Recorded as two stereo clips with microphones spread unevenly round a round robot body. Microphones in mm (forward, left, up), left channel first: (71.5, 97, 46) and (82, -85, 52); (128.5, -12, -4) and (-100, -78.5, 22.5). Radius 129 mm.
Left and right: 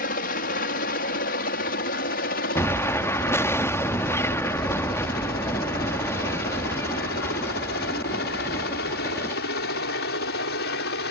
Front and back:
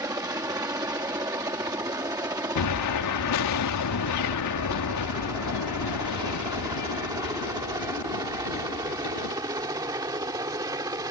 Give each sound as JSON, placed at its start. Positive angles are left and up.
{"t": 0.0, "sound": "a helicopter", "azimuth_deg": 120}
{"t": 2.5, "sound": "an explosion", "azimuth_deg": 15}